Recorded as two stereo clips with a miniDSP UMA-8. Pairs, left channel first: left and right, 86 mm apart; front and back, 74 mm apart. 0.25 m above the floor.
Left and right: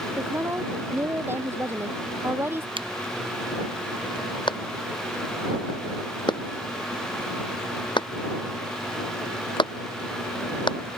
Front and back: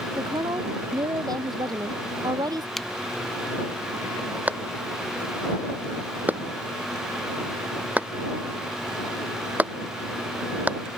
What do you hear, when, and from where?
0.2 s a woman speaking: 155° right
2.8 s a finger snap: 85° right
4.5 s a clap: 110° left